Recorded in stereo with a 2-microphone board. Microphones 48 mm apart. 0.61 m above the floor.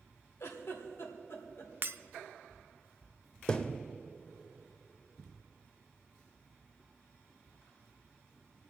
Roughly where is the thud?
Left.